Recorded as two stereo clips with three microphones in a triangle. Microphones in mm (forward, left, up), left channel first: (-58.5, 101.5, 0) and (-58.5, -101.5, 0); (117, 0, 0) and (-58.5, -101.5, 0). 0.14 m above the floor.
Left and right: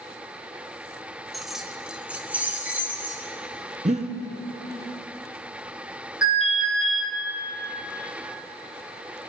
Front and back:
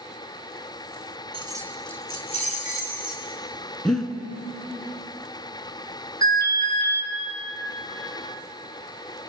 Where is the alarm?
75° left, 3.5 m.